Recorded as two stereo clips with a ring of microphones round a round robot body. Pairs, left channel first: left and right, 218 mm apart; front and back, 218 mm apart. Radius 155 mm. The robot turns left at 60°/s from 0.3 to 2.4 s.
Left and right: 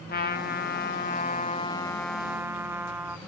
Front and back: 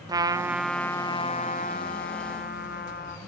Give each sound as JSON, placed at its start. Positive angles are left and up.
{"t": 0.1, "sound": "a trumpet", "azimuth_deg": 110, "distance_m": 0.7}